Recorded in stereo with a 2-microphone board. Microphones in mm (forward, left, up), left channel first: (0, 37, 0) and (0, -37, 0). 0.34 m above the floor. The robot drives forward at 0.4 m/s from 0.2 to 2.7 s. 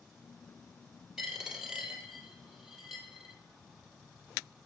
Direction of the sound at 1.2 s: 10° right (ahead or behind).